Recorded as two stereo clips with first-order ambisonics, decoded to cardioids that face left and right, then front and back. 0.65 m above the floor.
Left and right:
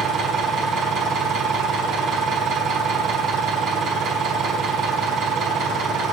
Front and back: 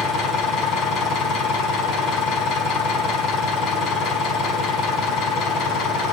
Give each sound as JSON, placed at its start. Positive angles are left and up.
{"t": 0.0, "sound": "an engine running", "azimuth_deg": -30, "distance_m": 5.0}